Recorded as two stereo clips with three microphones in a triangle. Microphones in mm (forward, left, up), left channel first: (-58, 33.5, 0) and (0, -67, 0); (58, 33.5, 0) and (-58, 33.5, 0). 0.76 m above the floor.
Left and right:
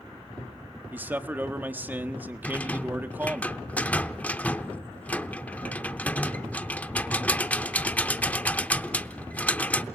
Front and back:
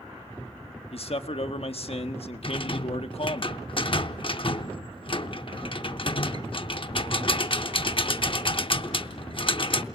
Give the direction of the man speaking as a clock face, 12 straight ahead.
12 o'clock.